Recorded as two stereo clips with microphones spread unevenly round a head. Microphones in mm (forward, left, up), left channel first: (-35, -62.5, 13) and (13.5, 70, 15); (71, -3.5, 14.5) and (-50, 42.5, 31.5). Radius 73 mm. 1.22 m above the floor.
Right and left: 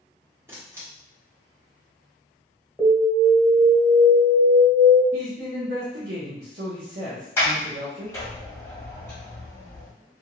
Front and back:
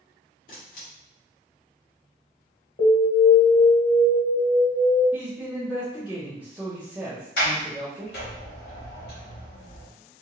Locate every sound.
0.5 s a camera shutter: straight ahead, 1.1 m
2.8 s an alarm: 20° right, 1.5 m
5.1 s a man speaking: 80° left, 0.9 m
7.4 s a sliding door: 35° right, 1.2 m